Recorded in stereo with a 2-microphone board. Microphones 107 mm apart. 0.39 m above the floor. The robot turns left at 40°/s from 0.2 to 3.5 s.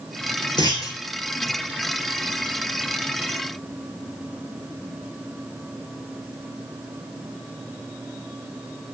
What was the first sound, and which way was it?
A clunk, 45° left (ahead or behind).